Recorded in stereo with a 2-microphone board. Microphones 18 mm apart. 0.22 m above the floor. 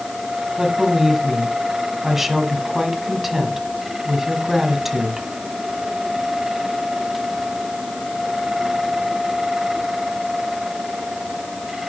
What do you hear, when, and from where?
0.6 s a woman speaking: 15° right (ahead or behind), 1.6 m